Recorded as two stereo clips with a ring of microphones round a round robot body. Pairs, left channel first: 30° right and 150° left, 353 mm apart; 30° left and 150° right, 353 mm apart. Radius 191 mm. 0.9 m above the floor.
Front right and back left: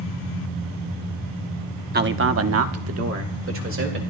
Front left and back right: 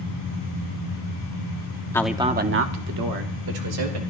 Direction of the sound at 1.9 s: 105° left.